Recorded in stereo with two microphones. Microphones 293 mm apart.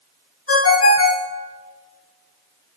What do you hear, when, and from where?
0.5 s a ringtone: 50° left (ahead or behind), 0.6 m